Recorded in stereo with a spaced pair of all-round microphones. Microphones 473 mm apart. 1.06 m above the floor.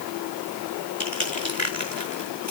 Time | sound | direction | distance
1.0 | crushing | 35° left (ahead or behind) | 4.5 m